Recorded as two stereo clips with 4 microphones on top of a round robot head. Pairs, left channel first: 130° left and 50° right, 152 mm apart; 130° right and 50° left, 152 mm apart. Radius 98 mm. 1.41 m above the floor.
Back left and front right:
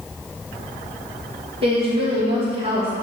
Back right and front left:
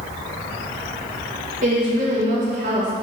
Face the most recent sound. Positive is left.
turn(degrees=5)